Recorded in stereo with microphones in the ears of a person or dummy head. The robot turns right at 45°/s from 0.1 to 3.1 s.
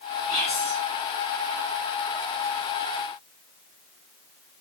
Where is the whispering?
30° left (ahead or behind), 1.1 m; by 0.8 s 10° left (ahead or behind), 1.1 m.